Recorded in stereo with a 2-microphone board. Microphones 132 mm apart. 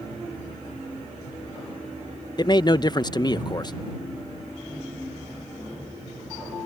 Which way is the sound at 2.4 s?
35° left (ahead or behind).